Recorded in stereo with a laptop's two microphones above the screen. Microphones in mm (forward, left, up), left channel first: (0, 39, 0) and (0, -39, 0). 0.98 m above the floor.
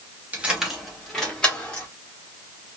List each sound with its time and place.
0.3 s keys jangling: 20° right (ahead or behind), 0.7 m; by 1.9 s 15° left (ahead or behind), 1.7 m